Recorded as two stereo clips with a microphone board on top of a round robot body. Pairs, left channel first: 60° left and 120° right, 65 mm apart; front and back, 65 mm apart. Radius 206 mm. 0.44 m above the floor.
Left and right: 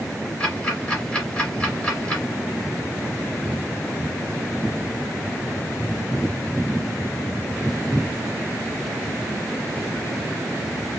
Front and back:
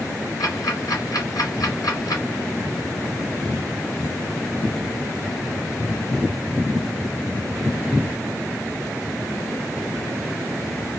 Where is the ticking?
10° right, 2.5 m.